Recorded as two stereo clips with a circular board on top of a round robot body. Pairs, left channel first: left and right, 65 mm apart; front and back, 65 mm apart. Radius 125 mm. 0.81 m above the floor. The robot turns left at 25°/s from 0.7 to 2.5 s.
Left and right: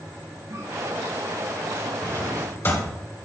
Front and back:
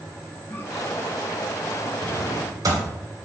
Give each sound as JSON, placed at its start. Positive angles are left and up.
{"t": 0.5, "sound": "a cough", "azimuth_deg": -50, "distance_m": 3.0}
{"t": 2.0, "sound": "a drawer", "azimuth_deg": 155, "distance_m": 2.5}